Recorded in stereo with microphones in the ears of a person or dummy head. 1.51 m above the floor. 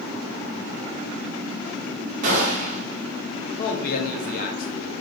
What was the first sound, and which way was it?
A gunshot, 45° right (ahead or behind).